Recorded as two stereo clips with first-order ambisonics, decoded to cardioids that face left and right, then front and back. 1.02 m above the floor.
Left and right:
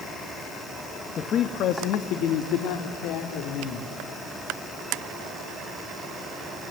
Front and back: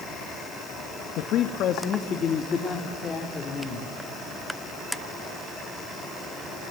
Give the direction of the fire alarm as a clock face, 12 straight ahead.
No fire alarm in this recording.